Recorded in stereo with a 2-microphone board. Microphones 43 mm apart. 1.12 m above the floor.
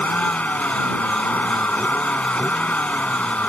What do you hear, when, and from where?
0.0 s a vehicle: 35° left (ahead or behind)